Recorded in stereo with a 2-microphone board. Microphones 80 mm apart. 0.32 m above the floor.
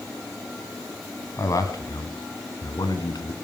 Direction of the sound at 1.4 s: 45° left (ahead or behind).